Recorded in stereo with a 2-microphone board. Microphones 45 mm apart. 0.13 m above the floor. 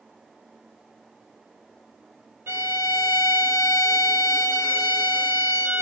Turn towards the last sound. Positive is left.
turn(degrees=-70)  # may be behind; listen again after turning